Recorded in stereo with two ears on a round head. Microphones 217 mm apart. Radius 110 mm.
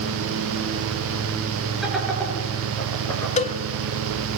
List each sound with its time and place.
1.8 s laughter: centre (ahead or behind), 8 m; by 3.3 s 15° left (ahead or behind), 7 m
3.4 s a cowbell: 30° left (ahead or behind), 1.3 m